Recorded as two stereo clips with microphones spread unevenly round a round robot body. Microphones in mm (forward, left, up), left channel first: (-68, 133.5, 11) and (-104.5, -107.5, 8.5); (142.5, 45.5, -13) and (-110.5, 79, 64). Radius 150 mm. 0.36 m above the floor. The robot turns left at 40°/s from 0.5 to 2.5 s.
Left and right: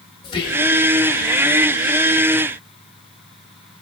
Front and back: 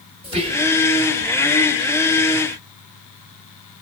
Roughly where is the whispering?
Left.